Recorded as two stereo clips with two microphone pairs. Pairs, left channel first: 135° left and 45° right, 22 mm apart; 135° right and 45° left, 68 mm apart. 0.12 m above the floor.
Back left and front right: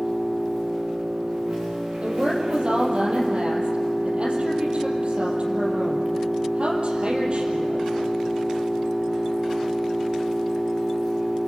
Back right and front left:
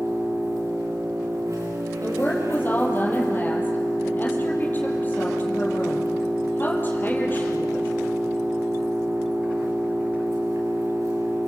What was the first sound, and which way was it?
An engine running, straight ahead.